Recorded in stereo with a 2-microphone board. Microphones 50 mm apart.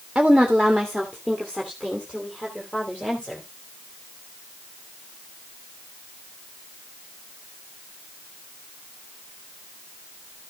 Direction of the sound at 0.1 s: 5° right (ahead or behind).